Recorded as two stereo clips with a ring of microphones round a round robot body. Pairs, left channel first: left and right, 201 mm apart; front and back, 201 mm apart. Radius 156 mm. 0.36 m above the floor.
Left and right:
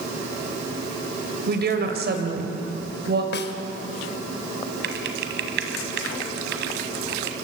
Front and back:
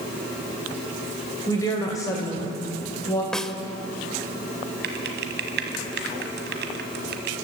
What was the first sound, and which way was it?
A woman speaking, 70° right.